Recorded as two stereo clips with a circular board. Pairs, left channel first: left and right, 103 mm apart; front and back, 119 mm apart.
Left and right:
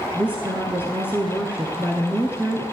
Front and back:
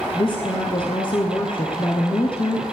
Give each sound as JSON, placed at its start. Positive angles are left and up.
{"t": 0.1, "sound": "a woman speaking", "azimuth_deg": -20, "distance_m": 1.6}